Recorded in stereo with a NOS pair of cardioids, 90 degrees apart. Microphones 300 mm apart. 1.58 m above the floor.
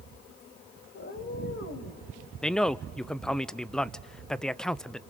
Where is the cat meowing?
40° left, 3.5 m; by 2.0 s 55° left, 3.5 m.